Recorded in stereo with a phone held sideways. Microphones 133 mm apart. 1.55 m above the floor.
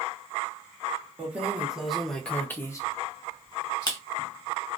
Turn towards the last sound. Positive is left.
turn(degrees=30)  # may be behind; listen again after turning